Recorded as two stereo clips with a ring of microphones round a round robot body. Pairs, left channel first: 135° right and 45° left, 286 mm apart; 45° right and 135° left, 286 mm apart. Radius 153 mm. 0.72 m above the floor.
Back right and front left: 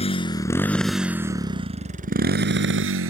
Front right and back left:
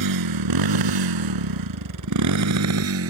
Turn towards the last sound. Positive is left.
turn(degrees=90)